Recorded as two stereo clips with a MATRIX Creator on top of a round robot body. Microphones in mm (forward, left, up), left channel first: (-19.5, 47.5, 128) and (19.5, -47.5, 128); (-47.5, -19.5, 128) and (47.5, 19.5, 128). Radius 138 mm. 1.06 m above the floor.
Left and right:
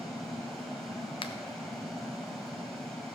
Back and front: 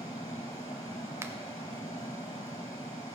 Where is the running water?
160° right, 0.9 m.